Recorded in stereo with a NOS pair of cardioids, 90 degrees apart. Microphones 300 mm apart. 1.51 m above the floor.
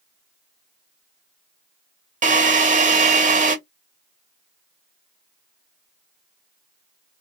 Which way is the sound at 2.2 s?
25° right.